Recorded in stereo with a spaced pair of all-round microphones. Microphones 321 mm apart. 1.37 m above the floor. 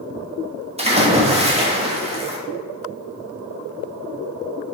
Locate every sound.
0.8 s a splash: 20° right (ahead or behind), 0.8 m